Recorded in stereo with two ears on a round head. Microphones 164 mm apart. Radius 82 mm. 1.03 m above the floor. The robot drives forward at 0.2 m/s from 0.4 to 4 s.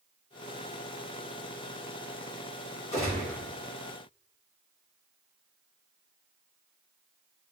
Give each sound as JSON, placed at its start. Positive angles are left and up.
{"t": 2.9, "sound": "a gunshot", "side_deg": 40, "distance_m": 1.4}